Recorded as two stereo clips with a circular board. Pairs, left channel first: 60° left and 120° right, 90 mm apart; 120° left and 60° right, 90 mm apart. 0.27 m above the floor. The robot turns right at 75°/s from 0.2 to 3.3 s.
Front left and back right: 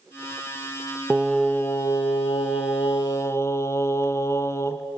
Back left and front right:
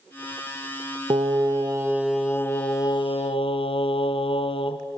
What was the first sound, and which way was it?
Singing, 45° right.